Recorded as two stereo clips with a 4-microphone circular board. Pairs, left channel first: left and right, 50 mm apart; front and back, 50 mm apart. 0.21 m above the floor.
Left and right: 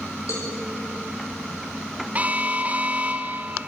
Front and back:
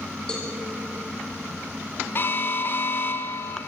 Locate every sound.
0.3 s a cowbell: 75° left, 8.5 m
2.1 s an alarm: 30° right, 1.6 m